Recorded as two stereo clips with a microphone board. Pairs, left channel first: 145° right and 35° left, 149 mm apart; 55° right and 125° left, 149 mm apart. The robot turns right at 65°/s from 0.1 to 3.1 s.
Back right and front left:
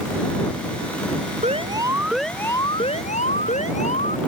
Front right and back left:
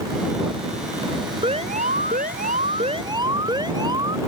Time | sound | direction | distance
1.4 | an alarm | 75° left | ?